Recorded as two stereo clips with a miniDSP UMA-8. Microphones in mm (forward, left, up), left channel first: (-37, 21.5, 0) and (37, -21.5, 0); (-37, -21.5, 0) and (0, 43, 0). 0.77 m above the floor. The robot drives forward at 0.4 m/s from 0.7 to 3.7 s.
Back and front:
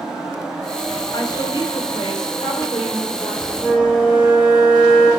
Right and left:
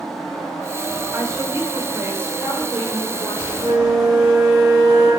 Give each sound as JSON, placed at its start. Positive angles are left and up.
{"t": 1.1, "sound": "a woman speaking", "azimuth_deg": 110, "distance_m": 2.5}
{"t": 3.6, "sound": "a flute", "azimuth_deg": 130, "distance_m": 6.0}